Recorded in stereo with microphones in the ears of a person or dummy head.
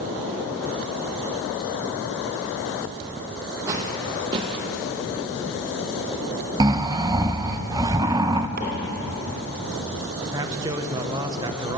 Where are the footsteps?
20° right (ahead or behind), 1.9 m; by 4.7 s 35° right (ahead or behind), 1.7 m.